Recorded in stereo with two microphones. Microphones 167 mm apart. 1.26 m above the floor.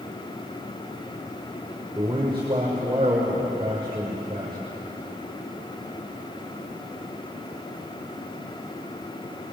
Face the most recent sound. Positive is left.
turn(degrees=-30)  # may be behind; listen again after turning